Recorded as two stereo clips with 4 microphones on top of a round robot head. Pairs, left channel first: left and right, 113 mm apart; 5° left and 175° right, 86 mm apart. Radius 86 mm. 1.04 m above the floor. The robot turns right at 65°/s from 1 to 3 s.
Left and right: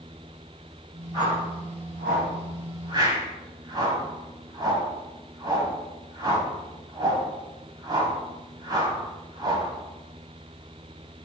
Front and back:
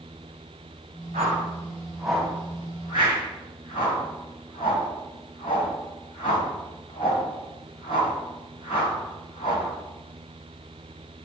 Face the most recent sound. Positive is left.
turn(degrees=-35)